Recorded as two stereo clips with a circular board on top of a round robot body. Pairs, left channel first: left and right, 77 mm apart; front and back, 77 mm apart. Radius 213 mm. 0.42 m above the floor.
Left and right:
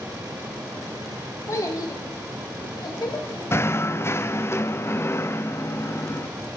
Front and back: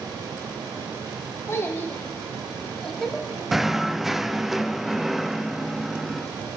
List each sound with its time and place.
1.5 s a child speaking: 45° left, 1.4 m; by 3.4 s 90° left, 2 m
3.5 s knocking: 95° left, 0.5 m